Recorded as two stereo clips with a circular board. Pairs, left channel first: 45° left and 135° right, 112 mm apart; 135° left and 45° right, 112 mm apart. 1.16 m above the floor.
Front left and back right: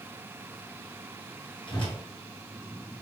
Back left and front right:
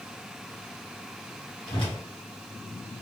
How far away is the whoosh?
About 1.3 m.